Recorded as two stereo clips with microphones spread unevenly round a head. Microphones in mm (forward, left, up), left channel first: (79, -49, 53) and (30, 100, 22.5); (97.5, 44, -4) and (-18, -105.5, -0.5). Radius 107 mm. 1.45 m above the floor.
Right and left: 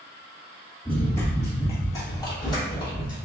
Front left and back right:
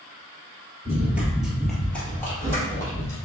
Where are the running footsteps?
85° right, 1.5 m; by 3.2 s 20° right, 2.5 m.